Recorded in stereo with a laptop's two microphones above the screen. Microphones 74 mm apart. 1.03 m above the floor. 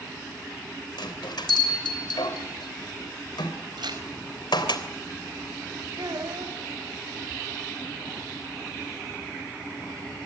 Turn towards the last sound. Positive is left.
turn(degrees=-75)  # may be behind; listen again after turning